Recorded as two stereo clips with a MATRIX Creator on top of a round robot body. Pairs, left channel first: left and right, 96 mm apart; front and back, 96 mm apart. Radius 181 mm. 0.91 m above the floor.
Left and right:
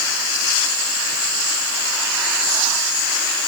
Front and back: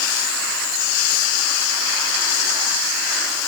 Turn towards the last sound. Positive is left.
No sound to turn to.